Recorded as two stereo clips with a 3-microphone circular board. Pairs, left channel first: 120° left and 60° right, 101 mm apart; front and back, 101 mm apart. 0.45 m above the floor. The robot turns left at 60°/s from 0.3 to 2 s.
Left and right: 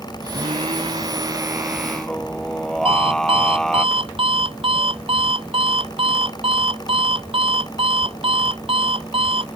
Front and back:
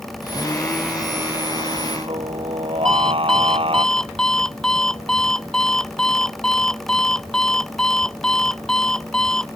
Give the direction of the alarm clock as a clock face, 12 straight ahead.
3 o'clock.